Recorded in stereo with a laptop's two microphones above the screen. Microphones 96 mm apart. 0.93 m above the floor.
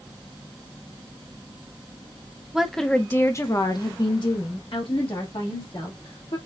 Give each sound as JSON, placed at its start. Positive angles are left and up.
{"t": 2.5, "sound": "a woman speaking", "side_deg": -5, "distance_m": 0.7}